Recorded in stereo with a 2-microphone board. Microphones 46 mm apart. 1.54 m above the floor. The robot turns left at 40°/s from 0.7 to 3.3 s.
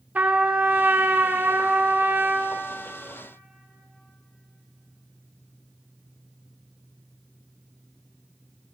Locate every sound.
0.1 s a trumpet: 55° right, 0.7 m; by 2.6 s 130° right, 0.7 m